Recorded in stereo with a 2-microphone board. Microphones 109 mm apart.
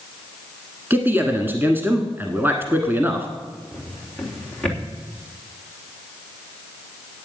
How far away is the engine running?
No engine running in this recording.